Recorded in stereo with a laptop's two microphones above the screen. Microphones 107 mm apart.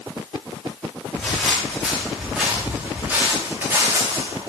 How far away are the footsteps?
About 6 m.